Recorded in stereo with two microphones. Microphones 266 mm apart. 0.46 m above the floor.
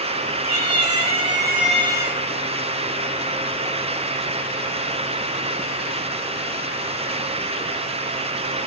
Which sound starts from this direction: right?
A cat meowing, at 0.4 s.